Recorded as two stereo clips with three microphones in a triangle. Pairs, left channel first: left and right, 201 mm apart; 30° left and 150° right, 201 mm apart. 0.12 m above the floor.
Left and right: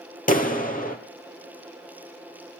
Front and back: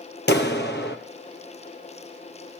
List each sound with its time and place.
0.3 s a clap: 50° left, 3 m